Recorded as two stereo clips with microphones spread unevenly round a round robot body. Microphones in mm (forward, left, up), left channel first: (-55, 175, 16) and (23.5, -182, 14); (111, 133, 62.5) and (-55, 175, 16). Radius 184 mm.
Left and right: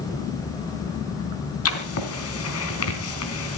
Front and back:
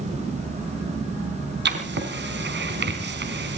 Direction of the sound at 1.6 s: 155° left.